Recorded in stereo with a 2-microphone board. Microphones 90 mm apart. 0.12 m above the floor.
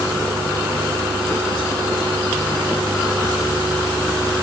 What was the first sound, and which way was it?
Only background noise.